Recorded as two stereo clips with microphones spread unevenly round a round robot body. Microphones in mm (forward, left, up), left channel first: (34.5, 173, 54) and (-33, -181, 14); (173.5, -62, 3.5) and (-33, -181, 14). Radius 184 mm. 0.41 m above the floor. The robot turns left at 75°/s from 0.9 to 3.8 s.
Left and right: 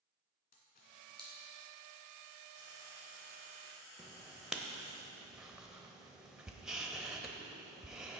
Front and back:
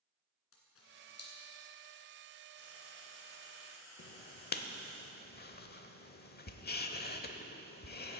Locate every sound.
0.5 s a camera shutter: 15° left, 2.5 m; by 1.3 s 15° right, 2.5 m
2.5 s frying: 120° left, 3 m; by 5.0 s 25° left, 3 m
4.0 s writing: 15° right, 0.8 m